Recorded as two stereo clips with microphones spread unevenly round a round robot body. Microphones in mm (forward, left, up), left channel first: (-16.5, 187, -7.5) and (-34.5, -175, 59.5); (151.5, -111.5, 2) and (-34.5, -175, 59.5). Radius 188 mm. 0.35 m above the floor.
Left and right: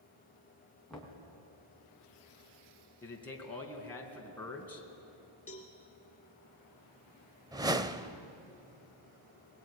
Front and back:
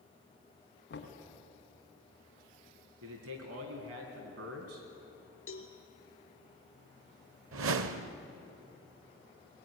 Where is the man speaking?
170° left, 3.5 m.